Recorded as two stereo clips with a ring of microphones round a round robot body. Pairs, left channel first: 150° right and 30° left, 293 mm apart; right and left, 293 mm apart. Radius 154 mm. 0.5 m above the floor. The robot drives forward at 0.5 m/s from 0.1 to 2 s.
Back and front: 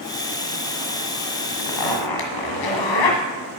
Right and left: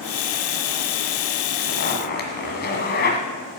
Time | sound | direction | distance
1.6 | a zipper | 145° right | 1.6 m